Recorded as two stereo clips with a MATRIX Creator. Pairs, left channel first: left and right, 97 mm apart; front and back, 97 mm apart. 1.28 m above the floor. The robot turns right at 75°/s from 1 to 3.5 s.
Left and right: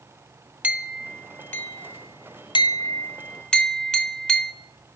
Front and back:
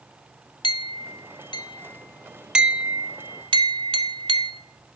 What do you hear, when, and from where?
0.6 s a clink: 20° right, 0.5 m; by 4.5 s 170° left, 0.5 m